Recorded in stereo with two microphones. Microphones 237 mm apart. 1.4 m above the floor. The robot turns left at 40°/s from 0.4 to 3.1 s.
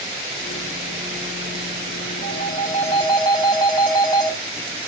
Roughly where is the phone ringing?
Ahead left.